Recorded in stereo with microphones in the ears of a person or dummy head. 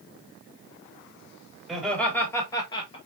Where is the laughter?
Centre (ahead or behind), 2.5 m; by 3.0 s 30° left (ahead or behind), 2 m.